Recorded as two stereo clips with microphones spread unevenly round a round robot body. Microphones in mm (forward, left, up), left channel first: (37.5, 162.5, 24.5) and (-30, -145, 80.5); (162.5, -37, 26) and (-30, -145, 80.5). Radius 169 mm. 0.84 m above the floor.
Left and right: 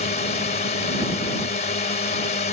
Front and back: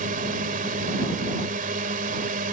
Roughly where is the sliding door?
No sliding door in this recording.